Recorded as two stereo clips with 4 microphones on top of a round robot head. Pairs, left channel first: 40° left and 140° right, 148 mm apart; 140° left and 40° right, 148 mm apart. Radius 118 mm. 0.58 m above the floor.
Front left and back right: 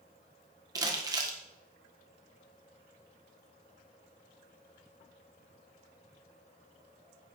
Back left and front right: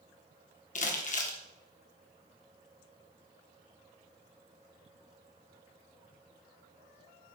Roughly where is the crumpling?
Behind.